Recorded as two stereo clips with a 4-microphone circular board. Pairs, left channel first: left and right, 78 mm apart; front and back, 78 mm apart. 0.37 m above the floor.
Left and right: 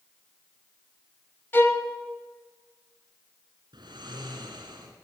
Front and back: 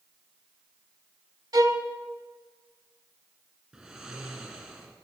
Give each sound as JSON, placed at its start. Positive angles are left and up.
{"t": 1.5, "sound": "a violin", "azimuth_deg": 150, "distance_m": 0.9}
{"t": 3.7, "sound": "snoring", "azimuth_deg": -105, "distance_m": 2.5}